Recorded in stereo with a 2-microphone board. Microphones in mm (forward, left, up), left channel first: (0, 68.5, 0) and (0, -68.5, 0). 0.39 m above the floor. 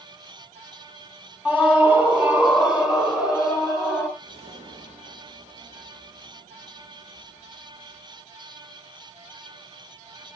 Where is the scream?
15° right (ahead or behind), 3 m; by 4.1 s 5° right (ahead or behind), 5 m.